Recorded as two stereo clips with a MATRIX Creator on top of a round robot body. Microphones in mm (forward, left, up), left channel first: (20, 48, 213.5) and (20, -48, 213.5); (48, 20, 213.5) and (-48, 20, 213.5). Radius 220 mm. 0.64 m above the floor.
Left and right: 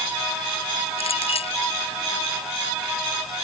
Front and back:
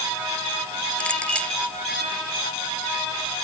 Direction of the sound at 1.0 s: 80° left.